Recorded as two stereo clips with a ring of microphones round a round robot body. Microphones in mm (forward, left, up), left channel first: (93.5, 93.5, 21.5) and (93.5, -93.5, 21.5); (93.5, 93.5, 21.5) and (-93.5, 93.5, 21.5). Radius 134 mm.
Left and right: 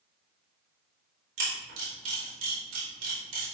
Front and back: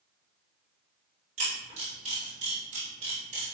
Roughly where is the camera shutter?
Behind right.